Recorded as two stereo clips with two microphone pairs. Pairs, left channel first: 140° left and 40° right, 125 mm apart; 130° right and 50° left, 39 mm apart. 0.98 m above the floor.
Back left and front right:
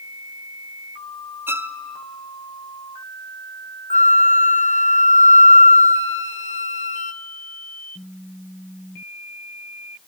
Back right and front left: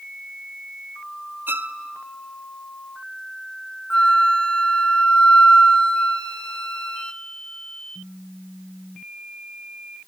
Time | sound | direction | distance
1.5 | a violin | 30° left | 0.6 m
3.9 | a flute | 165° left | 0.5 m